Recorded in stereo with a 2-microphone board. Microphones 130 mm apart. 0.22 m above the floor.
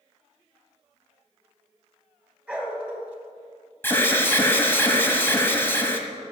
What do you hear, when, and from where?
2.5 s a dog barking: 10° right (ahead or behind), 1.7 m
3.8 s an alarm: 15° left (ahead or behind), 1.2 m